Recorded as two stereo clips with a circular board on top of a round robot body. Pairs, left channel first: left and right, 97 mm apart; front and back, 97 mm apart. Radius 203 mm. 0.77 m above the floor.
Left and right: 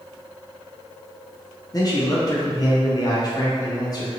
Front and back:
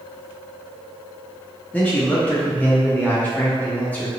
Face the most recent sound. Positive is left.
turn(degrees=65)